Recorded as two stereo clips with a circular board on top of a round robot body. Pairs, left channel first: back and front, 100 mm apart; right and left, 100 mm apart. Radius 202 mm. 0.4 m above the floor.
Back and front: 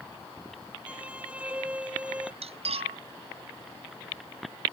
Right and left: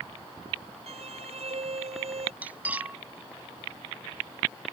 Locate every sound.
0.9 s a violin: 80° left
2.4 s cutlery clinking: 15° left